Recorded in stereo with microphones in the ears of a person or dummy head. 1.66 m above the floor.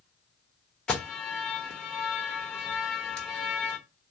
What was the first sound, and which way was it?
An alarm, 10° left (ahead or behind).